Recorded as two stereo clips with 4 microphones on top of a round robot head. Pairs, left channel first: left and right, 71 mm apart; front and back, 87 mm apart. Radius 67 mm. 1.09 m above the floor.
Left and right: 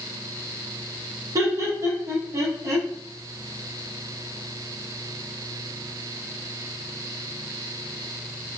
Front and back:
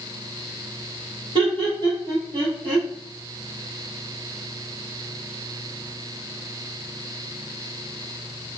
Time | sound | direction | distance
1.4 | laughter | 140° right | 1.0 m